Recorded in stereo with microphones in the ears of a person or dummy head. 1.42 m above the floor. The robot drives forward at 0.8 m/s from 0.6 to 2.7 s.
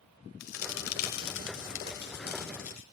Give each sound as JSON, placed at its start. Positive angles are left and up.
{"t": 0.4, "sound": "a crack", "side_deg": 80, "distance_m": 1.8}